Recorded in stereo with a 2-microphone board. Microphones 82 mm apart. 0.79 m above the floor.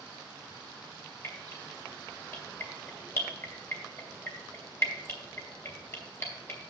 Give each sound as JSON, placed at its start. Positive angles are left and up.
{"t": 1.2, "sound": "dripping", "side_deg": 30, "distance_m": 3.0}